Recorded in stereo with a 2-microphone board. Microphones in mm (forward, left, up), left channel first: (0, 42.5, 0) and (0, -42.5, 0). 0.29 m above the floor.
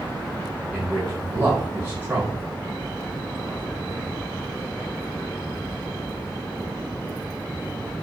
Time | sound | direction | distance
0.7 | a man speaking | 20° right (ahead or behind) | 1.2 m